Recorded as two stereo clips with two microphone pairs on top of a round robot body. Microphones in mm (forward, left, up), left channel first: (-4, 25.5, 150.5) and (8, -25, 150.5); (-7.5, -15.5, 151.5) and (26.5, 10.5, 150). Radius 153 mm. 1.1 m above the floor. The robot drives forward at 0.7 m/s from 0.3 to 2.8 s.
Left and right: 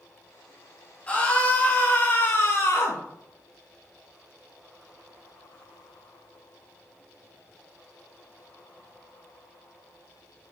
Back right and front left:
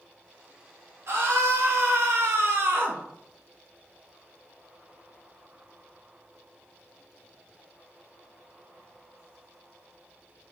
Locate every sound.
1.1 s a scream: 40° left, 2.5 m; by 3.0 s 70° left, 1.6 m